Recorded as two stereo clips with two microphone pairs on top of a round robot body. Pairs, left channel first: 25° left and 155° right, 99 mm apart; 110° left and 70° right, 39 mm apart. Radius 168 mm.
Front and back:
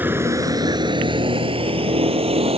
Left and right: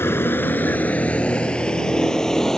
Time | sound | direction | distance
0.0 | a vehicle | 130° left | ?